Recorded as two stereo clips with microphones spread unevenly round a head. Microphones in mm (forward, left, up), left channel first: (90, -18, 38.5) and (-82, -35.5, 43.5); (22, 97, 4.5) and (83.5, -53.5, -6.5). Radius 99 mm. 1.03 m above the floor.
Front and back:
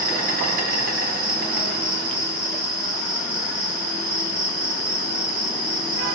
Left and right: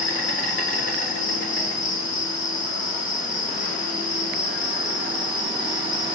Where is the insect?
145° left, 4 m.